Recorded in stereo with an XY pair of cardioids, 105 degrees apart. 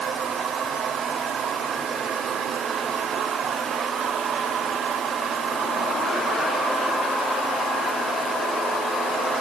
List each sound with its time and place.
Only background noise.